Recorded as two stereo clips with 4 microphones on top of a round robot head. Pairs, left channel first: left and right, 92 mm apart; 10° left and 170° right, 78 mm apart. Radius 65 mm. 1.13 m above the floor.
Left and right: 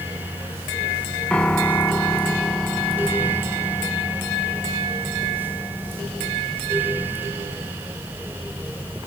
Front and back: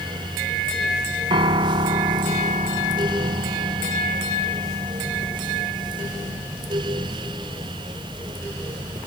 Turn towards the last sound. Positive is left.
turn(degrees=170)